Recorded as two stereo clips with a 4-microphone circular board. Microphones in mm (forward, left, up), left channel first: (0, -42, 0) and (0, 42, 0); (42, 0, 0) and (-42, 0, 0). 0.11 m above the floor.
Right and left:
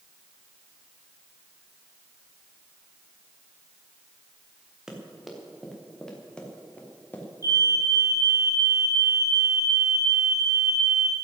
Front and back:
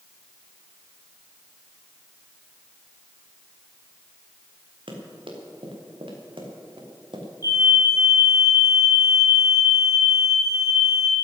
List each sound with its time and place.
4.9 s running footsteps: 175° left, 4.5 m; by 7.3 s 160° right, 4 m
7.4 s a fire alarm: 40° left, 6.5 m